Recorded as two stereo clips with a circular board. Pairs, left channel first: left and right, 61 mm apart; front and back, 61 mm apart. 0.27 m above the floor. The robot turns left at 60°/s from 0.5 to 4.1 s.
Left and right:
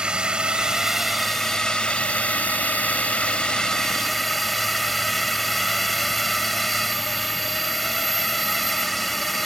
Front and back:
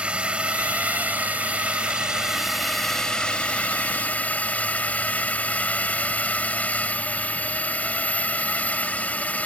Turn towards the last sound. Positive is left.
turn(degrees=5)